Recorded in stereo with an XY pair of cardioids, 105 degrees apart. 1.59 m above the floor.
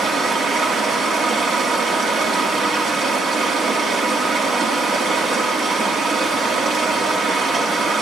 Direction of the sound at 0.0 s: 70° right.